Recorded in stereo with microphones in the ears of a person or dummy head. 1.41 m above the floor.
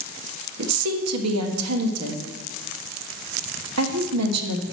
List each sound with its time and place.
0.6 s a woman speaking: 80° right, 1.0 m